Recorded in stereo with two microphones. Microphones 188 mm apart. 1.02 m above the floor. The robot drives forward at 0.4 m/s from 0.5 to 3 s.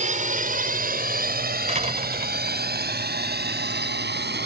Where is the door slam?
40° right (ahead or behind).